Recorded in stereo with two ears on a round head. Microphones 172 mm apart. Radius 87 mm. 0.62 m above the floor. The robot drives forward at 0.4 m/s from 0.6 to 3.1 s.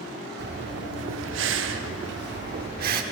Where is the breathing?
55° right (ahead or behind), 0.8 m; by 3.0 s 50° right (ahead or behind), 0.9 m.